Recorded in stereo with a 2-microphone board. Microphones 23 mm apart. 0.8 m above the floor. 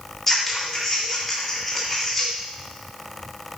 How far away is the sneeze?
No sneeze in this recording.